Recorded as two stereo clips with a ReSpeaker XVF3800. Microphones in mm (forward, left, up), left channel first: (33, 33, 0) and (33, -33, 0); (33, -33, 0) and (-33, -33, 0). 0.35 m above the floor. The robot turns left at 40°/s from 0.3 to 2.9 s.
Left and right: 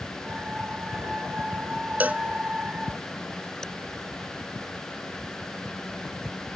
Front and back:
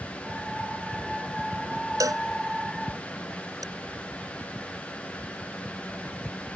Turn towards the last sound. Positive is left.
turn(degrees=170)